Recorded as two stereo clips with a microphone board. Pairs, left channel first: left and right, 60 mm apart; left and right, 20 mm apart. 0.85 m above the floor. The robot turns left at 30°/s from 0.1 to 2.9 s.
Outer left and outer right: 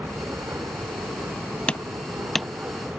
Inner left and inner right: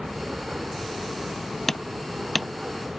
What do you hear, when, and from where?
0.0 s an aircraft: 60° right; by 3.0 s 145° right
1.7 s hammering: 20° left (ahead or behind); by 2.5 s centre (ahead or behind)